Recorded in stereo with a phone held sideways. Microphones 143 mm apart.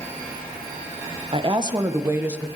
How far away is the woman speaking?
About 1.3 m.